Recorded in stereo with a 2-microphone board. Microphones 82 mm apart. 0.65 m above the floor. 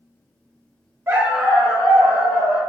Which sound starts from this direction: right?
A dog barking, at 1.1 s.